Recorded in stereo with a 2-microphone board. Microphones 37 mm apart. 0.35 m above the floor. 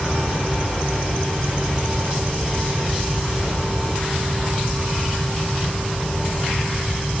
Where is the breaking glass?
No breaking glass in this recording.